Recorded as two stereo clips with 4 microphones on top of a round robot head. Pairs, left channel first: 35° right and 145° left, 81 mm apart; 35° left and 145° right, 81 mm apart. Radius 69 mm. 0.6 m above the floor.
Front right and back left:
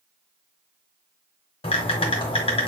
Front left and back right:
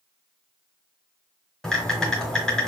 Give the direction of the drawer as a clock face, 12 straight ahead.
I don't hear a drawer.